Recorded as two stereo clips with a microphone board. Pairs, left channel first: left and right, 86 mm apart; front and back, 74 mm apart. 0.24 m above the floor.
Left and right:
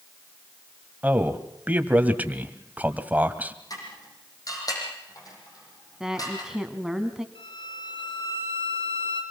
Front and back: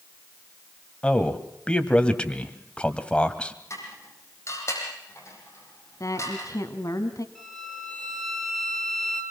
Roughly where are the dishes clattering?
Ahead left.